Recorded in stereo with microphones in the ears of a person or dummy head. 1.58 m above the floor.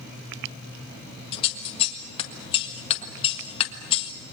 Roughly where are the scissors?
Left.